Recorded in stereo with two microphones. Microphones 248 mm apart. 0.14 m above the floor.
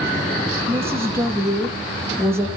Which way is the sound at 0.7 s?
10° right (ahead or behind).